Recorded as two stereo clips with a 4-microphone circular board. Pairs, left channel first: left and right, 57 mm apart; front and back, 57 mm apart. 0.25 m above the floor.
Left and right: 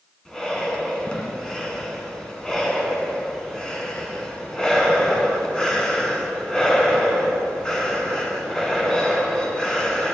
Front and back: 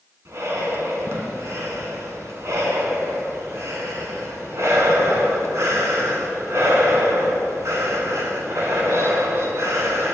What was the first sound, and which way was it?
Breathing, 165° left.